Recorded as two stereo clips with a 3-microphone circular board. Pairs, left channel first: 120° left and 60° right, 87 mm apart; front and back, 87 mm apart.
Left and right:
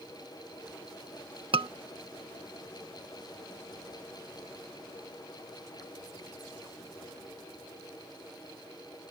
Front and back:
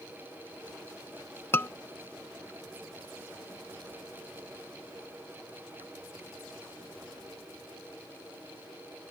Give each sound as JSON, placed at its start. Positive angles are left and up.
{"t": 1.5, "sound": "a scream", "azimuth_deg": -65}